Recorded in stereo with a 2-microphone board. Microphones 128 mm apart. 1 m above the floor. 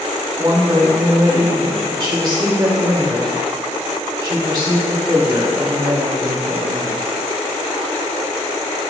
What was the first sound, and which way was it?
A woman speaking, 40° right (ahead or behind).